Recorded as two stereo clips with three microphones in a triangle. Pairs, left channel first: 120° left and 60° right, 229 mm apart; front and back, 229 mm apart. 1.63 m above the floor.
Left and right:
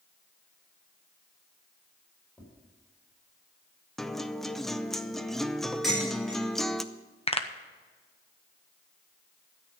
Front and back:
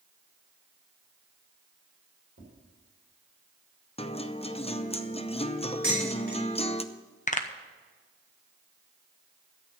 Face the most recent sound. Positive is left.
turn(degrees=55)